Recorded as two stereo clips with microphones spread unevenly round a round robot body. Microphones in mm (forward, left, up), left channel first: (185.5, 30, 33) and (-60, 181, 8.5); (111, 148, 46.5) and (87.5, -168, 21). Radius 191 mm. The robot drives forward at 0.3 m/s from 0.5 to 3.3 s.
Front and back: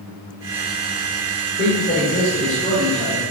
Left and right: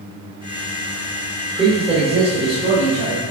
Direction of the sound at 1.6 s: 45° right.